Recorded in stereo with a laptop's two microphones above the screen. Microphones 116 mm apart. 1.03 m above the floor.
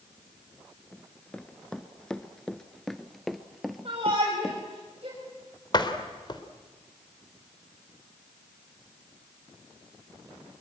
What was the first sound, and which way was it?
Running footsteps, 10° left (ahead or behind).